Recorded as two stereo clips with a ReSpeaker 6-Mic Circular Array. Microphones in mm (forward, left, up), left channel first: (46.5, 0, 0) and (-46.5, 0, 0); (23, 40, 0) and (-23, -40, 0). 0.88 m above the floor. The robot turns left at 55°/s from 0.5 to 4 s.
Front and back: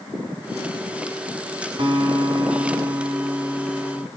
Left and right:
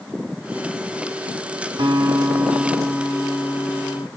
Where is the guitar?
150° right, 3 m; by 4.1 s 85° left, 3 m.